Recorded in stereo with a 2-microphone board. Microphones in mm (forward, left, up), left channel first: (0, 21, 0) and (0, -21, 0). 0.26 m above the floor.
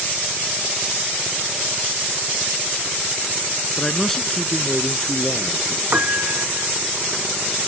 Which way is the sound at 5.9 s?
50° right (ahead or behind).